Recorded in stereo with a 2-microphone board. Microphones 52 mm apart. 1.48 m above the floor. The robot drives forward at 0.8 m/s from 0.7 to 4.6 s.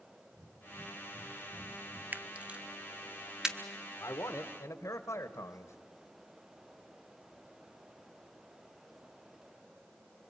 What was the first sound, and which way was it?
Breathing, 70° right (ahead or behind).